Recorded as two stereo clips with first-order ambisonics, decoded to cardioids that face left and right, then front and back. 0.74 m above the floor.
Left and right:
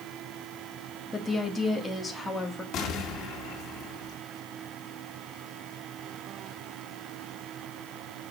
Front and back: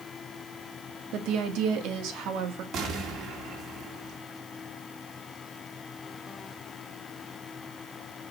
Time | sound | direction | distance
1.1 | a woman speaking | 170° left | 1.7 m
2.7 | an explosion | 135° left | 2 m